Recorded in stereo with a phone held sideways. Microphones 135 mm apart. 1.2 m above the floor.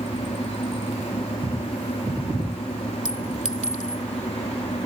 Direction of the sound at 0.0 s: 60° left (ahead or behind).